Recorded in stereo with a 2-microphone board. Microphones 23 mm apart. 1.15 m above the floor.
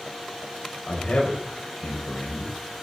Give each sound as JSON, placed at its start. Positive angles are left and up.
{"t": 0.9, "sound": "a man speaking", "side_deg": 85, "distance_m": 5.5}